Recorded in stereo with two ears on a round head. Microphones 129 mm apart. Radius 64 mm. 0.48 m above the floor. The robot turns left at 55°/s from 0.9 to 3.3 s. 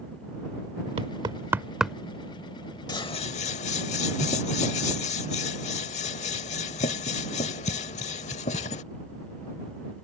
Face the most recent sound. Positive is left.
turn(degrees=50)  # may be behind; listen again after turning